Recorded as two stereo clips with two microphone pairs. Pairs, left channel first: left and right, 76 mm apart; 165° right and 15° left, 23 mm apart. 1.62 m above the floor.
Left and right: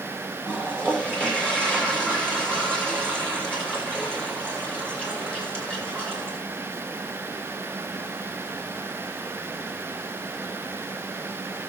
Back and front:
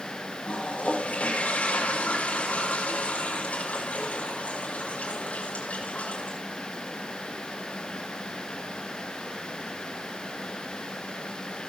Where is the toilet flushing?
165° left, 8 m.